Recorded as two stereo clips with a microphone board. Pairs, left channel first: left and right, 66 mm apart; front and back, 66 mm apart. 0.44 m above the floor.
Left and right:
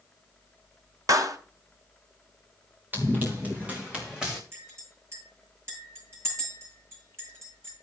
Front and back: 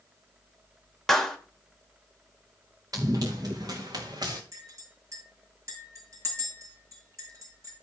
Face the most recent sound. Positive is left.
turn(degrees=-140)